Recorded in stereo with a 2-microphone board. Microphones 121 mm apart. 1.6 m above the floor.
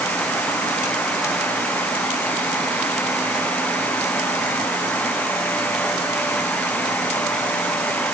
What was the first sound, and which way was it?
Only background noise.